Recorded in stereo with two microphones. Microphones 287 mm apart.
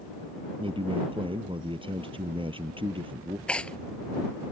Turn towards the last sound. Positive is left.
turn(degrees=5)  # may be behind; listen again after turning